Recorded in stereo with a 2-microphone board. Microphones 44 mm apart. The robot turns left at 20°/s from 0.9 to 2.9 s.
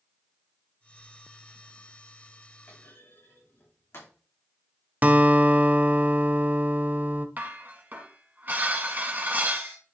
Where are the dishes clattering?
35° right (ahead or behind), 2 m.